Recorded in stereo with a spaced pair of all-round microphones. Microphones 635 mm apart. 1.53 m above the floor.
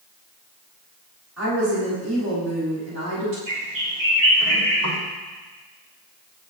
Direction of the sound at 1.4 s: 25° right (ahead or behind).